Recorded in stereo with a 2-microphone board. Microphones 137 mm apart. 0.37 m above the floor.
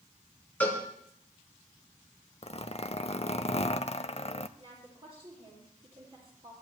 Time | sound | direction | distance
0.6 | a cowbell | 10° left (ahead or behind) | 3 m
2.4 | a zipper | 50° left (ahead or behind) | 0.5 m
4.6 | a woman speaking | 45° right (ahead or behind) | 7.5 m